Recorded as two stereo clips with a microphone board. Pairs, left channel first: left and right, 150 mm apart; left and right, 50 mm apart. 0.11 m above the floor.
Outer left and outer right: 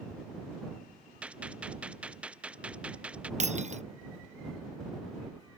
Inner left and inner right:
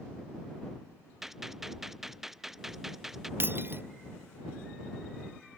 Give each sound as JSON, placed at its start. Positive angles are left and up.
{"t": 1.2, "sound": "a gunshot", "side_deg": -10}
{"t": 3.4, "sound": "breaking glass", "side_deg": -50}